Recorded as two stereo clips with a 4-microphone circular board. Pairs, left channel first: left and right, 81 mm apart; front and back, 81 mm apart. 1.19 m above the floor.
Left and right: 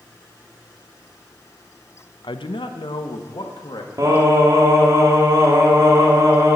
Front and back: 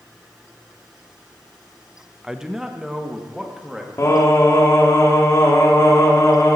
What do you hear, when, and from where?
2.2 s a man speaking: 95° left, 0.7 m
4.0 s singing: 50° right, 2 m